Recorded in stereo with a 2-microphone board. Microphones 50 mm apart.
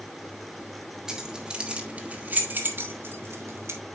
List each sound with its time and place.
1.1 s keys jangling: 10° right (ahead or behind), 1.8 m; by 3.8 s 65° right (ahead or behind), 1.8 m